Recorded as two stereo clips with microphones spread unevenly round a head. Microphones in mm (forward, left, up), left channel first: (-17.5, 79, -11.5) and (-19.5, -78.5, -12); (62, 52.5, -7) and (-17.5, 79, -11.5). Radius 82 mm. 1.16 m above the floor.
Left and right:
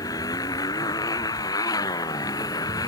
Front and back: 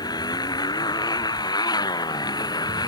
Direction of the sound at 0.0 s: 20° left.